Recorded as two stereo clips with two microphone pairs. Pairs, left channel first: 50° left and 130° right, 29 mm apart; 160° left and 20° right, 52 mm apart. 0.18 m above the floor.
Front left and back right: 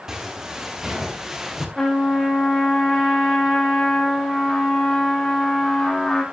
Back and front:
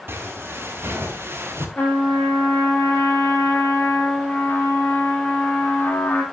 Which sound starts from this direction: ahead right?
Footsteps, at 0.1 s.